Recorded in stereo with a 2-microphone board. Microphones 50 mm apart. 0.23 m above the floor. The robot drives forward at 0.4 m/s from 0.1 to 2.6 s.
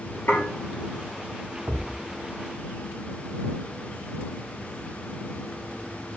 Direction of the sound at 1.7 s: 80° right.